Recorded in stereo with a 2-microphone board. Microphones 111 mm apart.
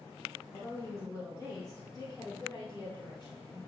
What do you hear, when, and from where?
0.5 s a woman speaking: 25° left (ahead or behind), 1.6 m; by 3.6 s 45° left (ahead or behind), 2.5 m